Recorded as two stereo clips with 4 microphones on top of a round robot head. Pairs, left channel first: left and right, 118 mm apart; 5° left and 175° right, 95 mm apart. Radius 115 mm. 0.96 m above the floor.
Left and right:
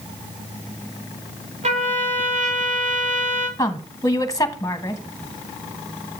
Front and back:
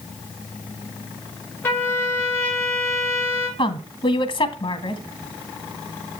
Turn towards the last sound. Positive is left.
turn(degrees=25)